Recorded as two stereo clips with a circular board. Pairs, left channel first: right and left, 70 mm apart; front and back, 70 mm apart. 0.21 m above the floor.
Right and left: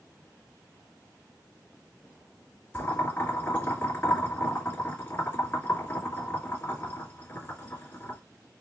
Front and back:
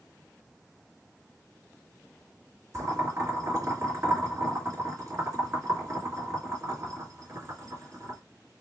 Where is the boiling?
145° right, 2.5 m.